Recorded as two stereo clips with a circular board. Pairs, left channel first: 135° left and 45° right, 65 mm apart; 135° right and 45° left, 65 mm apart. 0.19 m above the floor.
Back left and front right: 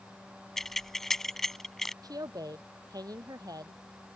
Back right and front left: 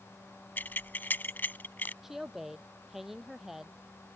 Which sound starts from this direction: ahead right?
A woman speaking, at 2.0 s.